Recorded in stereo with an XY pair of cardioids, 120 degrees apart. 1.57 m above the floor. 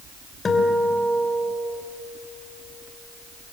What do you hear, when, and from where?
0.5 s a guitar: 30° left, 3 m